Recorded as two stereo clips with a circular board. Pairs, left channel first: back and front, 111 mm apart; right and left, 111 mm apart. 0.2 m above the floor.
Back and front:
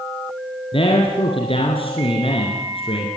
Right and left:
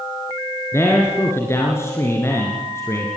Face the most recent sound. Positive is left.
turn(degrees=-155)